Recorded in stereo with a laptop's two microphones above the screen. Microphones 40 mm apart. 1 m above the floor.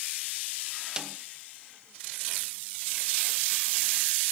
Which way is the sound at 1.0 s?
20° right (ahead or behind).